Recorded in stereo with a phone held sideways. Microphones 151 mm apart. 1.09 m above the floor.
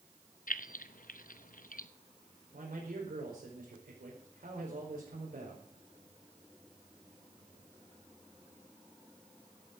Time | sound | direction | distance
0.5 | keys jangling | 65° left (ahead or behind) | 0.7 m
2.5 | a man speaking | 80° right | 4.5 m